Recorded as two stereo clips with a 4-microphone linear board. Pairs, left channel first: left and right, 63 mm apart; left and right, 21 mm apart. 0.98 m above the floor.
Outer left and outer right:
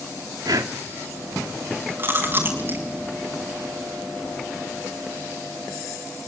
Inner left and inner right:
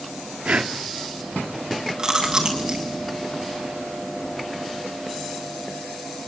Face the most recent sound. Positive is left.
turn(degrees=-35)  # may be behind; listen again after turning